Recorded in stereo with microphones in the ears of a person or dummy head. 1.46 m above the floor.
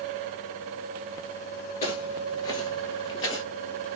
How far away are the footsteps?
About 1.6 m.